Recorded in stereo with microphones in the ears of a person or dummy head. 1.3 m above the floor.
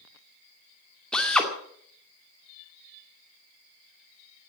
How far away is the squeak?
I don't hear a squeak.